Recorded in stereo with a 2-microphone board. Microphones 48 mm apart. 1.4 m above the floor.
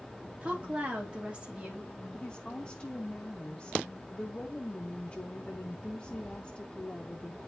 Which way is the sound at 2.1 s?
25° left (ahead or behind).